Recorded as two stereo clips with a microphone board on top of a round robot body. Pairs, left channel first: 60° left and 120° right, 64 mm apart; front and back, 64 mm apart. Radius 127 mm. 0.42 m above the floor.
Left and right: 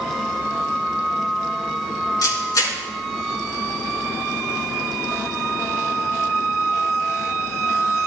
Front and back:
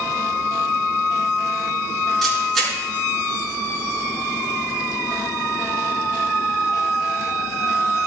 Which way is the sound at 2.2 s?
85° left.